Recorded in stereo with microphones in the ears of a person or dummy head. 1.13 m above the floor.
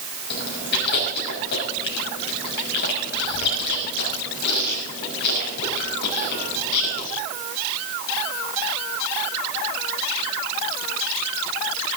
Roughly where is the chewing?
Left.